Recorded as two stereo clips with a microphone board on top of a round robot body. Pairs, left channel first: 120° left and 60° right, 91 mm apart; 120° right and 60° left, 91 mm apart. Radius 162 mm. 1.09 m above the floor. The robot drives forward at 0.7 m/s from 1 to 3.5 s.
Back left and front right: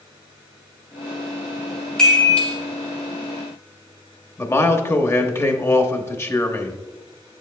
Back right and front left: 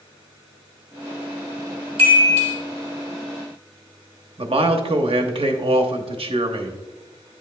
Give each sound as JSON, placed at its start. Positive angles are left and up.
{"t": 2.0, "sound": "a chime", "azimuth_deg": 40, "distance_m": 1.9}
{"t": 4.4, "sound": "a man speaking", "azimuth_deg": 60, "distance_m": 0.9}